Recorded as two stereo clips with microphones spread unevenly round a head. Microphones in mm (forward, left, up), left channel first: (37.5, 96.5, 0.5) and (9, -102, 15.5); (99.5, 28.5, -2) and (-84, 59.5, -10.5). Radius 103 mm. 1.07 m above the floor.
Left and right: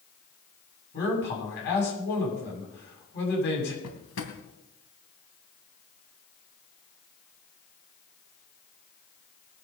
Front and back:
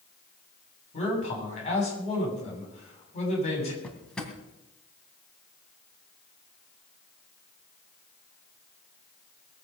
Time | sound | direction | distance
0.9 | a man speaking | 45° left | 7.5 m
3.8 | a drawer | 75° left | 2.5 m